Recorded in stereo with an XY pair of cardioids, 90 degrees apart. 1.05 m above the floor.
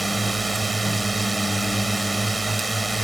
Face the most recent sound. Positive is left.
turn(degrees=-15)